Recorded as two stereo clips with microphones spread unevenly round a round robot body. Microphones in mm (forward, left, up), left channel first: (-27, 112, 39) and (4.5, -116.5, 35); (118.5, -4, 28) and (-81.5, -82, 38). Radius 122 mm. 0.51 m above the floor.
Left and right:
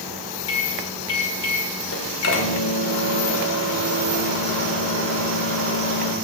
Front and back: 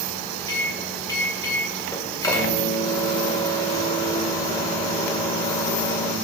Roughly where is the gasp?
I don't hear a gasp.